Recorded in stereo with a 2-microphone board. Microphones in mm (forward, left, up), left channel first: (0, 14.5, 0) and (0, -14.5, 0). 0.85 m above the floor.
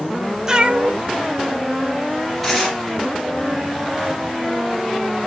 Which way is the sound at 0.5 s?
20° right (ahead or behind).